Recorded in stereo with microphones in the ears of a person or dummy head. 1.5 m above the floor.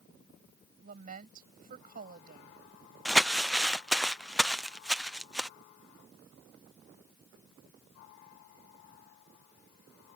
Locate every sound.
0.8 s a woman speaking: 45° right (ahead or behind)
3.0 s crumpling: 5° right (ahead or behind)